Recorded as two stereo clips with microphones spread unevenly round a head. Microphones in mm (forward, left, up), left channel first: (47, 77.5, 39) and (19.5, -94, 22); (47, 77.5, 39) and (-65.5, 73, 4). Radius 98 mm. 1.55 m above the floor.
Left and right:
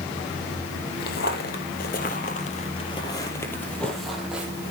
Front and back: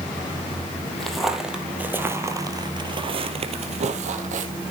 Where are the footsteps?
75° left, 3 m; by 4.5 s 175° left, 3 m.